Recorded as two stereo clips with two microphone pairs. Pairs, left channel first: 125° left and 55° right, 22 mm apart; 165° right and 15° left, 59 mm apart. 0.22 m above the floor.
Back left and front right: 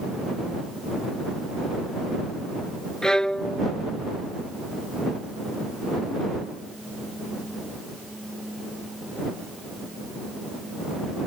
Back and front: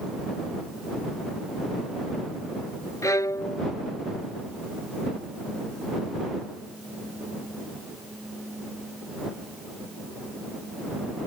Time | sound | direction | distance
3.0 | a violin | 175° right | ?